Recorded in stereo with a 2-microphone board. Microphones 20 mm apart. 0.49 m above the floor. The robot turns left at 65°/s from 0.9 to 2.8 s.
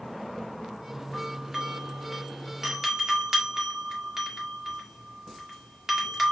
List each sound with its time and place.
1.1 s a doorbell: centre (ahead or behind), 1.3 m; by 6.3 s 20° right (ahead or behind), 1.3 m